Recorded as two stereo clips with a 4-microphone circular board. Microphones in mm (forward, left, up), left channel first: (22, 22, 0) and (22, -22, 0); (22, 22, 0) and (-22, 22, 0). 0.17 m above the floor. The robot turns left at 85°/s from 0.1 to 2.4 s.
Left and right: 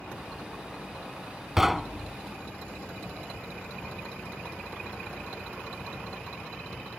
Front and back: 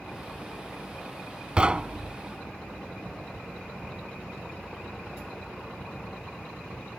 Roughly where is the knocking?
Behind right.